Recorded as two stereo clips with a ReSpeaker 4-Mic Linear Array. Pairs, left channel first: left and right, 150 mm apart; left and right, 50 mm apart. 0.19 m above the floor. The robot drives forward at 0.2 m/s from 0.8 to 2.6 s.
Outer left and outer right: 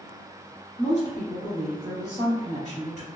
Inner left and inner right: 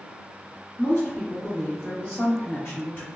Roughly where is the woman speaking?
Left.